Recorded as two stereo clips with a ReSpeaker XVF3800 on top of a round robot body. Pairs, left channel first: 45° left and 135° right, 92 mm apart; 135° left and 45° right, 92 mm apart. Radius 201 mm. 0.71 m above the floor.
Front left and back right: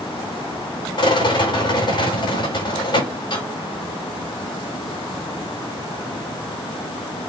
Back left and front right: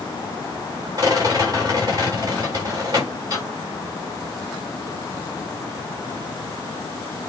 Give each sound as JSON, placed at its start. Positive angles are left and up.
{"t": 1.0, "sound": "a rattle", "azimuth_deg": 5, "distance_m": 8.5}